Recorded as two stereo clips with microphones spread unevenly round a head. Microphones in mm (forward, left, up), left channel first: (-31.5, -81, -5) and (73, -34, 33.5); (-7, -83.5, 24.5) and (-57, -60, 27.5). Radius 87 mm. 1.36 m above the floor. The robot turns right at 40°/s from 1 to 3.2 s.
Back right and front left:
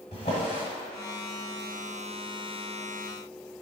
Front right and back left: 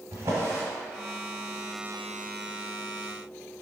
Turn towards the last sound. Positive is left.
turn(degrees=-135)